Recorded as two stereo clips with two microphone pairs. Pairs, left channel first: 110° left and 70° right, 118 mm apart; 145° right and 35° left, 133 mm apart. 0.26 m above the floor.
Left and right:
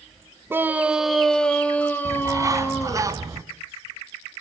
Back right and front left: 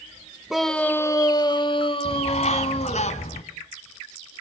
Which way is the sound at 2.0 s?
125° right.